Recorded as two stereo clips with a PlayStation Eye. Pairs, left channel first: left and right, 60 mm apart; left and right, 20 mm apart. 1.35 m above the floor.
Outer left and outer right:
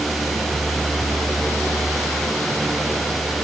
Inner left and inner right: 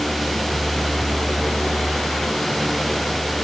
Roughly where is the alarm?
I don't hear an alarm.